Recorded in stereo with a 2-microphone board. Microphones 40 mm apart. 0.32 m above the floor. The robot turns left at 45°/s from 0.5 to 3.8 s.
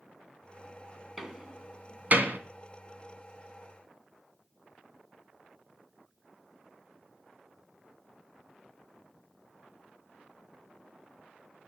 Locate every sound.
1.2 s a door slam: 5° right (ahead or behind), 2.5 m; by 2.4 s 55° right (ahead or behind), 2.5 m